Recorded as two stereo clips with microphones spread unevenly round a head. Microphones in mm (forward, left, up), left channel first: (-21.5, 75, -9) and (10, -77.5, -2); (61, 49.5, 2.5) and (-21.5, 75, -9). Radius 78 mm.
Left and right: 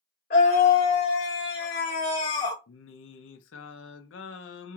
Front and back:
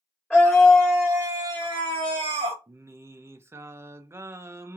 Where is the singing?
100° left, 0.5 m.